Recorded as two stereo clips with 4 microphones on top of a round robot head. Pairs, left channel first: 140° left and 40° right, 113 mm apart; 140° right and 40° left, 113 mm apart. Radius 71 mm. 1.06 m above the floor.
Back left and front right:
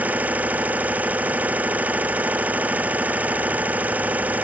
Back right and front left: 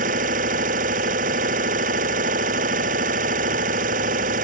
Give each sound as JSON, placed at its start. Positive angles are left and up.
{"t": 0.0, "sound": "an engine running", "azimuth_deg": 35}